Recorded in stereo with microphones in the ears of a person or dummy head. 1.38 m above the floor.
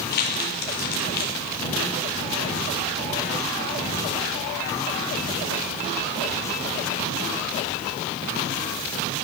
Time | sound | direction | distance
0.1 | crumpling | 55° left (ahead or behind) | 2.5 m